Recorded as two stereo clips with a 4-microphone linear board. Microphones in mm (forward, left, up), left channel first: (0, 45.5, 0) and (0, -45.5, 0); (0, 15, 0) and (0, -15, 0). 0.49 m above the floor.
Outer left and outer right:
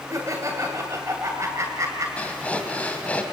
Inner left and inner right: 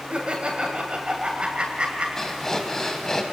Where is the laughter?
35° right (ahead or behind), 2.5 m.